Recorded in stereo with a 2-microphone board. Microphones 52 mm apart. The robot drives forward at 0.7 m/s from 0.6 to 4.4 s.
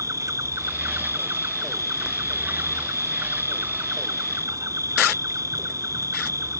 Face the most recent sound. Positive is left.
turn(degrees=-85)